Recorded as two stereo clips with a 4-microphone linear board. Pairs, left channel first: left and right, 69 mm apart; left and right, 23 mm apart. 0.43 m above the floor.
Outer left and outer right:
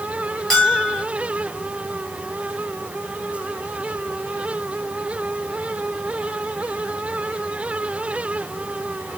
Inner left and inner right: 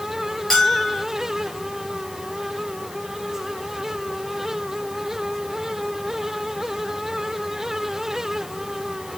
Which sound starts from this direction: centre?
A bell, at 0.5 s.